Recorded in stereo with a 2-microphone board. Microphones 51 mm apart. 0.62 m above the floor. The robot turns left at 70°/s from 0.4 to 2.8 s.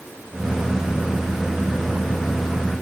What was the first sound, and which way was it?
Only background noise.